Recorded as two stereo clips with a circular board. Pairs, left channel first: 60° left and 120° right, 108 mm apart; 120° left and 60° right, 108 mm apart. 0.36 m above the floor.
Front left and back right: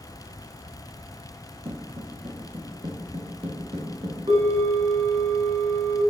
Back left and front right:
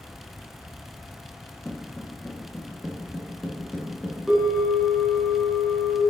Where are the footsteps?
155° right, 1.2 m.